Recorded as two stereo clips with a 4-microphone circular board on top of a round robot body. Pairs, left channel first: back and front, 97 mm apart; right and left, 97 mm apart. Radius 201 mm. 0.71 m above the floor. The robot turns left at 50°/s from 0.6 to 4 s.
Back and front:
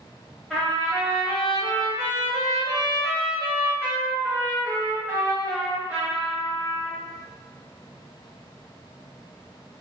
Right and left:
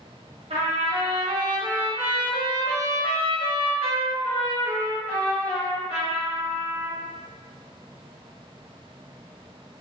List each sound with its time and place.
0.5 s a trumpet: 90° left, 0.9 m; by 7.0 s 80° right, 0.9 m